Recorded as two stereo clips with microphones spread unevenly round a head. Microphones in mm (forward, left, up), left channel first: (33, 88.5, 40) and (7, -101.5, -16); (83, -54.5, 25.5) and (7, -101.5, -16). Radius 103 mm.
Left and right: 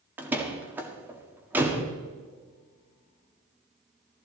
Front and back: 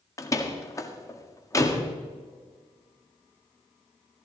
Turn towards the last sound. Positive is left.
turn(degrees=-15)